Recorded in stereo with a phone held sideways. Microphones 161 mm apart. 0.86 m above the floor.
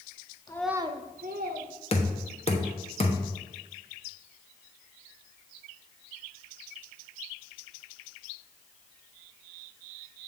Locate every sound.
0.5 s a child speaking: 25° left (ahead or behind), 0.7 m; by 1.7 s 75° right (ahead or behind), 1.7 m
1.9 s knocking: 40° left (ahead or behind), 1.1 m